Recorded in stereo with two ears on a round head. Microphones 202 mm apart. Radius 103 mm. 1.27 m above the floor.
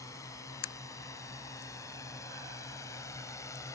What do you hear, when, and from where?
0.0 s a drone: 15° left (ahead or behind)